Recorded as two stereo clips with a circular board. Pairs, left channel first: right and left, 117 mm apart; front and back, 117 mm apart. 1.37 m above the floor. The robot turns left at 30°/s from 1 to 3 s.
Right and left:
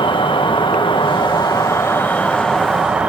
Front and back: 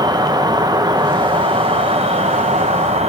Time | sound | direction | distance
0.0 | an insect | 130° right | 0.8 m